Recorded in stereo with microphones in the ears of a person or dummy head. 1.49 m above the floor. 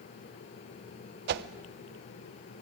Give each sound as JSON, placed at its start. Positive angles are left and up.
{"t": 1.3, "sound": "a whoosh", "side_deg": -55, "distance_m": 1.0}